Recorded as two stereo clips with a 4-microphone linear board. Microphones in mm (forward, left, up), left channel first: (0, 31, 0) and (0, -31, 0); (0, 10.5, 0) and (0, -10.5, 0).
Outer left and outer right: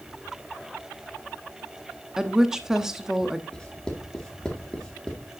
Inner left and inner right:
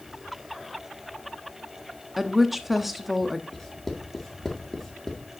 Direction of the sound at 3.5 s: 15° left (ahead or behind).